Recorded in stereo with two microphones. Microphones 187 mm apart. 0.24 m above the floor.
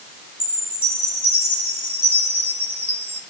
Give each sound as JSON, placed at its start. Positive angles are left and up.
{"t": 0.4, "sound": "a chime", "side_deg": 30, "distance_m": 5.0}